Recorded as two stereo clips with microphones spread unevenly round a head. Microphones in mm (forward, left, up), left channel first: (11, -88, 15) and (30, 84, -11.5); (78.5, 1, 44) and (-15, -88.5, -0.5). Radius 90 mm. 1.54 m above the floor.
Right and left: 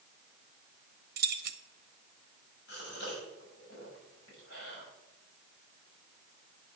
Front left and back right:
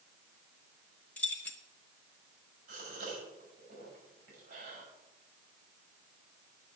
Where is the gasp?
130° right, 7 m.